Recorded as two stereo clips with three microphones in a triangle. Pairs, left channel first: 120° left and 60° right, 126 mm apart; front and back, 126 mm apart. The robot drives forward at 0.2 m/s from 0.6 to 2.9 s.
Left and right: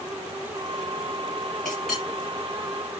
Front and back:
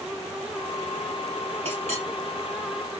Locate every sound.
1.6 s a clink: 150° right, 3 m